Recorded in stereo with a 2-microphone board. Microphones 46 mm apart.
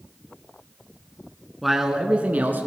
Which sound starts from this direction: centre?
A man speaking, at 1.6 s.